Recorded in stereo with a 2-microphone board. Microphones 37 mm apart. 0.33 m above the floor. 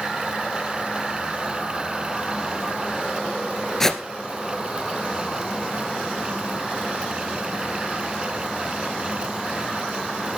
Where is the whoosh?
15° left (ahead or behind), 1.5 m.